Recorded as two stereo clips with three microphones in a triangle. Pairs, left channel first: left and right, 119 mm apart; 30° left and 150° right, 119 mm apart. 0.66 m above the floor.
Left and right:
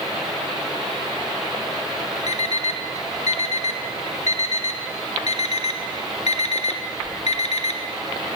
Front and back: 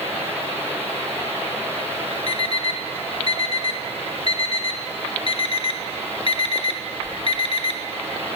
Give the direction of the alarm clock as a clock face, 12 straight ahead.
10 o'clock.